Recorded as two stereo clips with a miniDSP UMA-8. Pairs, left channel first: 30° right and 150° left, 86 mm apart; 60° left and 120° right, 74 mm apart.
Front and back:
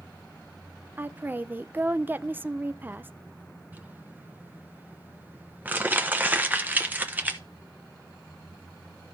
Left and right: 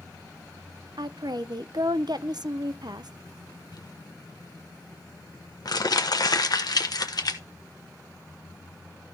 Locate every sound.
1.0 s a woman speaking: 140° right, 0.5 m
3.7 s crumpling: 80° left, 1.0 m